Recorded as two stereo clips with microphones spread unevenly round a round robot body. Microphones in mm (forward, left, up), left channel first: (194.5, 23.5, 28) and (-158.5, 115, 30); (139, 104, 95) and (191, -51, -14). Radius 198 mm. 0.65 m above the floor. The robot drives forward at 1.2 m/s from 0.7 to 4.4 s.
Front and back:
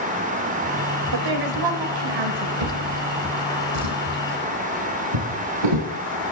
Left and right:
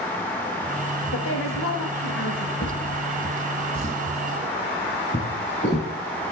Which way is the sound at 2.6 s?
155° left.